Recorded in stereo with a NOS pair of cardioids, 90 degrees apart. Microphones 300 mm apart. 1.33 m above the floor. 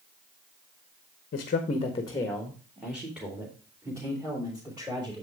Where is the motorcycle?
No motorcycle in this recording.